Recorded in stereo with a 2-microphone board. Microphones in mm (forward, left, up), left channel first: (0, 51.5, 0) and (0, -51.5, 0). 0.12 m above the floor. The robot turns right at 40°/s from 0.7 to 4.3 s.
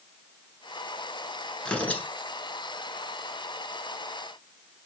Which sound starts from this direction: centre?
Tearing paper, at 1.6 s.